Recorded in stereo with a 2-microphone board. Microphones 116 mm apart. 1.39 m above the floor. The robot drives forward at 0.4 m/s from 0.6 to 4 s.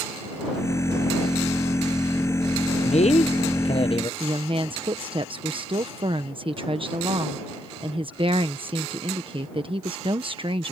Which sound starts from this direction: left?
A man speaking, at 2.8 s.